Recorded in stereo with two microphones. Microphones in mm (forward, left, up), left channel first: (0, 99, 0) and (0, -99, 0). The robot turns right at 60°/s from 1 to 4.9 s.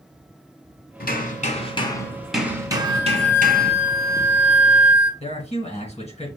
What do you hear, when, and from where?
1.0 s hammering: 100° left, 1.1 m; by 3.7 s 95° right, 1.1 m
2.7 s a flute: 25° right, 1.2 m; by 5.1 s 105° left, 1.2 m
5.2 s a man speaking: 35° left (ahead or behind), 1.7 m